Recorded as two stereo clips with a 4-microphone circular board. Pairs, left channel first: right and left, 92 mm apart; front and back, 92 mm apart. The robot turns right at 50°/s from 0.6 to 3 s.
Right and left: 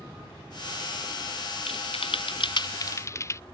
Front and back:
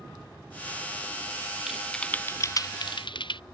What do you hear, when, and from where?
1.7 s typing on a keyboard: 95° right; by 3.4 s 30° right